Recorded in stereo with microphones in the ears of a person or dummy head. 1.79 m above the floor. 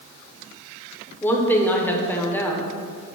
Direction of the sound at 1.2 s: 10° left (ahead or behind).